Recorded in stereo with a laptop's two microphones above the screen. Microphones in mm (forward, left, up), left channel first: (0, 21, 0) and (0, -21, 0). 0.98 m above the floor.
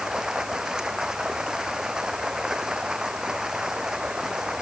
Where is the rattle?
I don't hear a rattle.